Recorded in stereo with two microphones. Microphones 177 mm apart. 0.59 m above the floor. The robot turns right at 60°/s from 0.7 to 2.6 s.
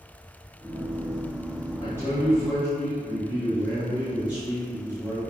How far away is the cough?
I don't hear a cough.